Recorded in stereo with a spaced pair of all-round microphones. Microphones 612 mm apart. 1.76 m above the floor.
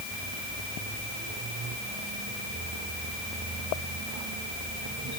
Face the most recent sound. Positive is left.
No sound to turn to.